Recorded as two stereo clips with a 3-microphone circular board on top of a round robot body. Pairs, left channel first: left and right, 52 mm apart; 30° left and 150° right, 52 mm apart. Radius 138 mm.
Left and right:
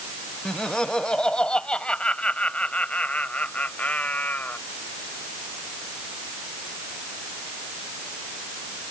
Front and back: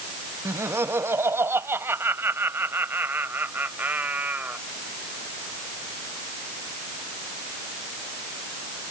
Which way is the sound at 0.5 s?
165° left.